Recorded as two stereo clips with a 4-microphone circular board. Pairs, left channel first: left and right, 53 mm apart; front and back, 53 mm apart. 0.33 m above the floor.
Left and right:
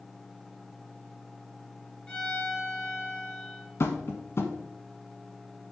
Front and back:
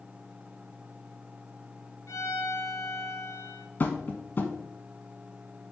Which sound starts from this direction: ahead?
A violin, at 2.1 s.